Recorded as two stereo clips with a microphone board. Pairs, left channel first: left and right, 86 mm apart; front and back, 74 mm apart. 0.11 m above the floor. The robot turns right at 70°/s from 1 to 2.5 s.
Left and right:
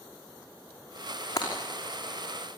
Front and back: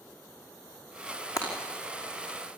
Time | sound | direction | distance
1.4 | breaking glass | 40° left | 5.5 m